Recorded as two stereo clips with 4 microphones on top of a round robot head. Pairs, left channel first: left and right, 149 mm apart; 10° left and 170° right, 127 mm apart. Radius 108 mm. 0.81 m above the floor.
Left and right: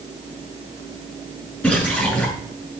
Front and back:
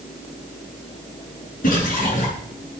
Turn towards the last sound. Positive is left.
turn(degrees=5)